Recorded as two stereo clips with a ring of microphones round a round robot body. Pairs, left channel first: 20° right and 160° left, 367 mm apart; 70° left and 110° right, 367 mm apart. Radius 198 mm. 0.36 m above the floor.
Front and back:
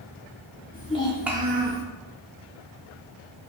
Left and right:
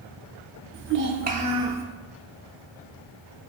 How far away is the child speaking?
About 0.5 m.